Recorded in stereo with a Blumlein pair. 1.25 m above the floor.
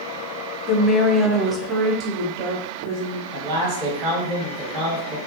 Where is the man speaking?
35° right, 1.6 m.